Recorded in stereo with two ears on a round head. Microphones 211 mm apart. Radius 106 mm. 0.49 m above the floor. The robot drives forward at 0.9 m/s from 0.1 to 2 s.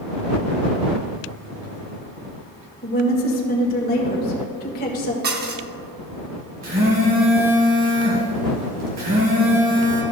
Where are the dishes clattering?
40° right (ahead or behind), 0.8 m.